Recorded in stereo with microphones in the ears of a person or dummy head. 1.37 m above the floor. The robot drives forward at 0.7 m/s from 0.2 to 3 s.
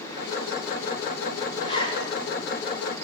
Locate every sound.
1.6 s a zipper: 40° left (ahead or behind), 4.5 m; by 2.1 s 35° left (ahead or behind), 5 m